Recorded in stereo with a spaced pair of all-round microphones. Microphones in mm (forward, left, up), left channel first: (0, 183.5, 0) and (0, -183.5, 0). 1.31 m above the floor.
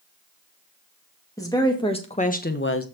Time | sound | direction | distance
1.4 | a woman speaking | 10° left (ahead or behind) | 2 m